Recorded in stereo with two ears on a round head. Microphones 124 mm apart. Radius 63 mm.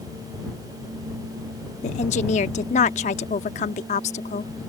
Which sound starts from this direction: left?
A woman speaking, at 1.8 s.